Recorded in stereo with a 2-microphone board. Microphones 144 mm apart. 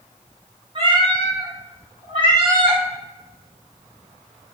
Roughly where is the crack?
I don't hear a crack.